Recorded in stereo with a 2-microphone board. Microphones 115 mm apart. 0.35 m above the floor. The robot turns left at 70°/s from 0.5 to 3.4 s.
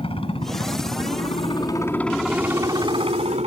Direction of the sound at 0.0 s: 120° left.